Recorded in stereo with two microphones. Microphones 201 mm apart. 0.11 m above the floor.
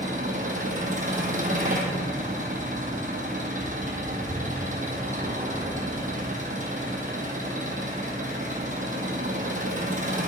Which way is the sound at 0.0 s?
40° right (ahead or behind).